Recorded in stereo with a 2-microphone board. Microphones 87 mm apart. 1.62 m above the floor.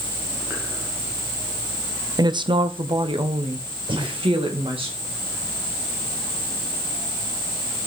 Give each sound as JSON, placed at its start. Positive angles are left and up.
{"t": 2.2, "sound": "a woman speaking", "side_deg": -50, "distance_m": 0.6}
{"t": 3.9, "sound": "breathing", "side_deg": -70, "distance_m": 3.5}